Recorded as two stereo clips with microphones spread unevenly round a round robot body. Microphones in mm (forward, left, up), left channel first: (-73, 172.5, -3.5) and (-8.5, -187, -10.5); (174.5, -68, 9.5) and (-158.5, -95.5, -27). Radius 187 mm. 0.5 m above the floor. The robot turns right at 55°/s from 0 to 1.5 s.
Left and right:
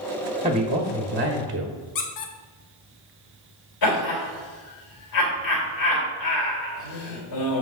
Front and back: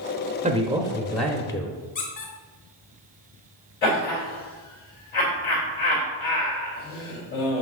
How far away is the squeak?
About 0.9 m.